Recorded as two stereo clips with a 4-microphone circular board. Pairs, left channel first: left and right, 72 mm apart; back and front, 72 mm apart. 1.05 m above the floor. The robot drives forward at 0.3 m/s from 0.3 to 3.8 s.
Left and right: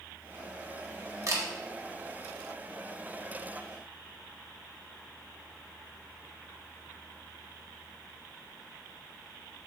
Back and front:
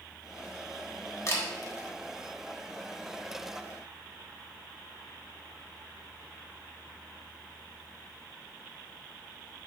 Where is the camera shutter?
130° right, 1.2 m.